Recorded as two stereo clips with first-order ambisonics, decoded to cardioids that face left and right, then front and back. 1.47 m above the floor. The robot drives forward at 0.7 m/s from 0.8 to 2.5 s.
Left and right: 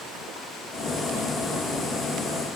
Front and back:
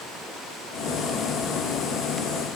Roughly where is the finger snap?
No finger snap in this recording.